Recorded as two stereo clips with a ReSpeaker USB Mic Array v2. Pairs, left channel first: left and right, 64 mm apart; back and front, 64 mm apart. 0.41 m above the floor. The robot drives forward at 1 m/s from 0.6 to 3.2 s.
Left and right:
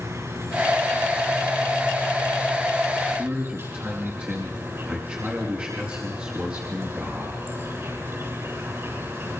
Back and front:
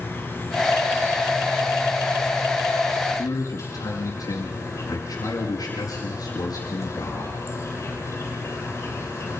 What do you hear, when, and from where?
0.0 s an insect: 125° right, 7.5 m; by 9.4 s 135° right, 9 m
3.2 s a man speaking: 155° right, 5 m